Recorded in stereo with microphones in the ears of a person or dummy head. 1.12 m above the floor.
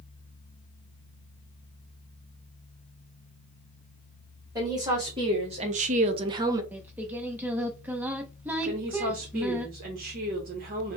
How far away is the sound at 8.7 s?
About 0.8 m.